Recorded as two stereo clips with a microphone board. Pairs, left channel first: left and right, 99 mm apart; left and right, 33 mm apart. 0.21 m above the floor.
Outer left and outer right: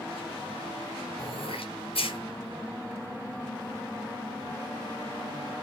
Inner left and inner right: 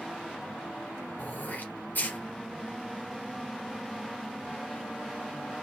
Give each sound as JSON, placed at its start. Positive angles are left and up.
{"t": 1.2, "sound": "throat clearing", "side_deg": 70, "distance_m": 2.5}